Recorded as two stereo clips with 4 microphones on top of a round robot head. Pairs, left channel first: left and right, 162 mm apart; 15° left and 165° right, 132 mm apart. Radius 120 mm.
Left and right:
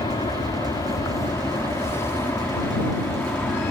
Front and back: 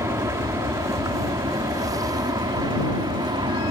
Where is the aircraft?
140° left; by 3.7 s 165° left.